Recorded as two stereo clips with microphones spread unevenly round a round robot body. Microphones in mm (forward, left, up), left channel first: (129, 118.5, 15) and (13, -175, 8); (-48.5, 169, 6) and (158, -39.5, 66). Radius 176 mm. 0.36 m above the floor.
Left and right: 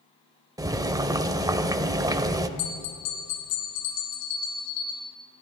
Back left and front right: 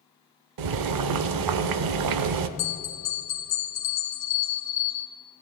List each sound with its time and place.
0.6 s boiling: 35° right, 0.6 m
2.6 s a bell: 90° left, 1.7 m